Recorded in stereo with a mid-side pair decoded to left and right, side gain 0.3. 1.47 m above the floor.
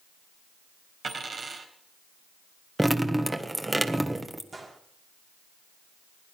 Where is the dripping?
20° right, 1.6 m.